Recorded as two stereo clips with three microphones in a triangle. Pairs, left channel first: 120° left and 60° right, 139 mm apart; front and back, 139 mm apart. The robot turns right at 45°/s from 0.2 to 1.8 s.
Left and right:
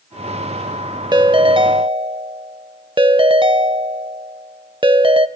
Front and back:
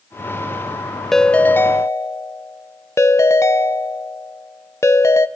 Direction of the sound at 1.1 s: 90° right.